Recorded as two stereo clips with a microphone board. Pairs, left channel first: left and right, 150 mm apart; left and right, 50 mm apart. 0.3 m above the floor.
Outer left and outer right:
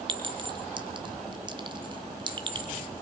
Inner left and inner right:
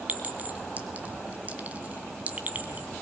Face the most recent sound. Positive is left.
turn(degrees=-35)  # may be behind; listen again after turning